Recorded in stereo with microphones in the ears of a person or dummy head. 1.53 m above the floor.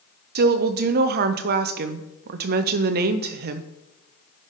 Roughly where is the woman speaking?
Right.